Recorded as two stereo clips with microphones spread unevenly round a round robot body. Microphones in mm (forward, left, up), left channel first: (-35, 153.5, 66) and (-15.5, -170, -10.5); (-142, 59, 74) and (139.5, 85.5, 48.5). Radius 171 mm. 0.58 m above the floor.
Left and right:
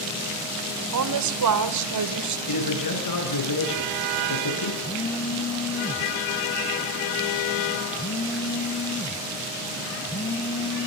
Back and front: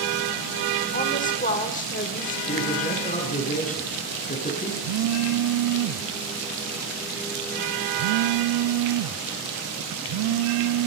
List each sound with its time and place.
0.9 s a woman speaking: 110° right, 1.6 m
2.5 s a man speaking: 120° left, 9 m
4.8 s a phone buzzing: 5° left, 0.7 m